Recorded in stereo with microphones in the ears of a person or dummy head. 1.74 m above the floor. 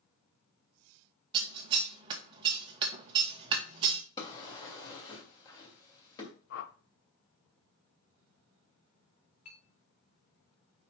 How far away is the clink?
About 2.0 m.